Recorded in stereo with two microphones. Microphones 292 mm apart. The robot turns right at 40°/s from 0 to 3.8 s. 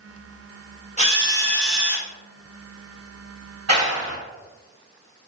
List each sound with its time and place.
1.0 s a drill: 150° left, 0.5 m; by 2.1 s 165° right, 0.5 m
3.7 s a clap: 55° right (ahead or behind), 1.3 m; by 4.2 s 60° right (ahead or behind), 1.3 m